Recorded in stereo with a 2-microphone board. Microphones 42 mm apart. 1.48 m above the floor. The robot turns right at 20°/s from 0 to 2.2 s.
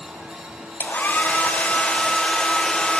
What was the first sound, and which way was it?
A hair dryer, 50° left (ahead or behind).